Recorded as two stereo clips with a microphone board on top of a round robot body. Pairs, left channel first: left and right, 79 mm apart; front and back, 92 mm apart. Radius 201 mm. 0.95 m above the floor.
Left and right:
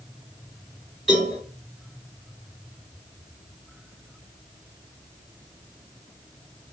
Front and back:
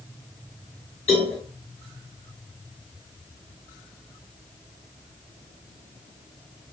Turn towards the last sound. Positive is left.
turn(degrees=0)